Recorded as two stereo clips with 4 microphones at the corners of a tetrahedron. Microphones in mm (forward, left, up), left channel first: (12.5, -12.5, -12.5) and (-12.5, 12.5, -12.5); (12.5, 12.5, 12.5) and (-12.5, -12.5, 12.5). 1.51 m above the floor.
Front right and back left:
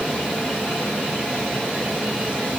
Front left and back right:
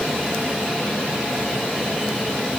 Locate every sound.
Only background noise.